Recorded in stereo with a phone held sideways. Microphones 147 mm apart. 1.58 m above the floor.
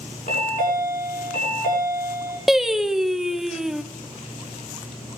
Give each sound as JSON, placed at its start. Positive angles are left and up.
{"t": 0.3, "sound": "a chime", "side_deg": 80, "distance_m": 6.0}
{"t": 2.5, "sound": "singing", "side_deg": 0, "distance_m": 0.8}